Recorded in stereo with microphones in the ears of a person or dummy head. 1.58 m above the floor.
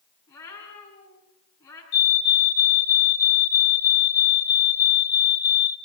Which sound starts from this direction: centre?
A cat meowing, at 0.3 s.